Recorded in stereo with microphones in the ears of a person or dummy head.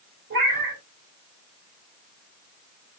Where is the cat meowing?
55° right (ahead or behind), 1.6 m.